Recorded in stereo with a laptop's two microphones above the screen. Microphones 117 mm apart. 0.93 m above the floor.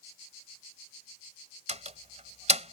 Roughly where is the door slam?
Right.